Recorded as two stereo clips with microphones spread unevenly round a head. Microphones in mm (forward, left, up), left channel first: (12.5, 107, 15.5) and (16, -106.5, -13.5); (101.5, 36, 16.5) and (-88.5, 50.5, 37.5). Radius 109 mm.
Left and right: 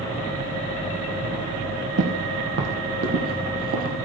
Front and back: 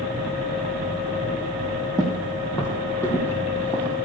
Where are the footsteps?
80° right, 2.5 m; by 4.0 s 95° right, 1.9 m.